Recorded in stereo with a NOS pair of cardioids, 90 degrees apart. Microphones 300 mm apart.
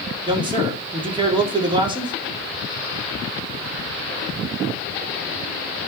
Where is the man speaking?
15° right, 3.5 m.